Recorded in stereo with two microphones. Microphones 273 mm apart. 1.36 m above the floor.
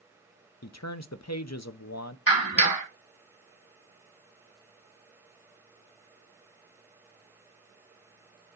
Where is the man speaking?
85° left, 0.7 m.